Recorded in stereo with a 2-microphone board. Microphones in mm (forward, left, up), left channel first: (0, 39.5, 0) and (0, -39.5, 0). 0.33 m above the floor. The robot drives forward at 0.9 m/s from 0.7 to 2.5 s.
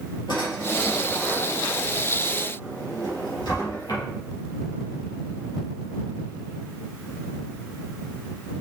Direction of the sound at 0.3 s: 80° left.